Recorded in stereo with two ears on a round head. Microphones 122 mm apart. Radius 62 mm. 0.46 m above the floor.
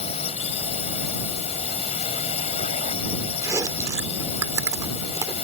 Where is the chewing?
20° right (ahead or behind).